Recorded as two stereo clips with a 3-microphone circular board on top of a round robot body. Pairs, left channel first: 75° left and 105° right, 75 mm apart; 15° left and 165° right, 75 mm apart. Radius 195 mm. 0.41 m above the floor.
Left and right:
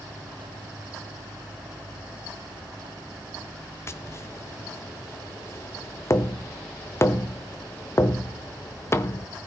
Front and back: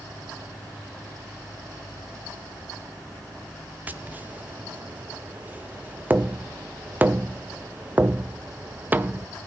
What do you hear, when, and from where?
3.9 s tapping: 130° left, 0.9 m